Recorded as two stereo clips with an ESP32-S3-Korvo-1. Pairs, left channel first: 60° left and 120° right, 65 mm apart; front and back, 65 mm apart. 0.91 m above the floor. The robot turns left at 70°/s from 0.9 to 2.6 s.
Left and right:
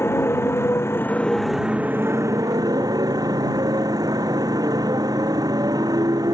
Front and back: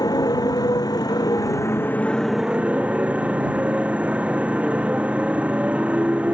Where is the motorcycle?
10° left; by 6.3 s 110° right.